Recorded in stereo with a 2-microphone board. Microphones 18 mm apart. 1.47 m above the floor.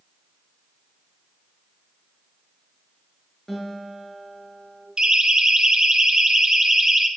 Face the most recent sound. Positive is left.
turn(degrees=-15)  # may be behind; listen again after turning